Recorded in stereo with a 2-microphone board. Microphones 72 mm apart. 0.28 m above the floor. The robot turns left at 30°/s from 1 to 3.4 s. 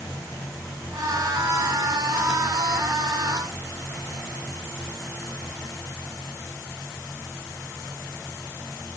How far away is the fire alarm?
No fire alarm in this recording.